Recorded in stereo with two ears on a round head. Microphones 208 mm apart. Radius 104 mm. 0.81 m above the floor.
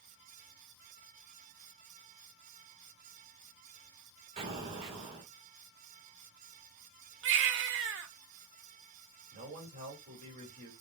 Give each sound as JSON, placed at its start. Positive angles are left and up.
{"t": 4.4, "sound": "an explosion", "side_deg": -25, "distance_m": 1.6}
{"t": 7.2, "sound": "a baby crying", "side_deg": -55, "distance_m": 0.7}
{"t": 9.3, "sound": "a man speaking", "side_deg": -30, "distance_m": 2.5}